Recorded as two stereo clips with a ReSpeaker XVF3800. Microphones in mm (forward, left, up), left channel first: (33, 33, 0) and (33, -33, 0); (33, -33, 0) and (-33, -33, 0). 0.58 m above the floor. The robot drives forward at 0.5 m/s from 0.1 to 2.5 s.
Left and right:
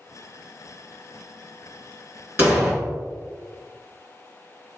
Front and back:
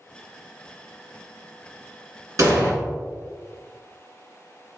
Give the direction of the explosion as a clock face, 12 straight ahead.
5 o'clock.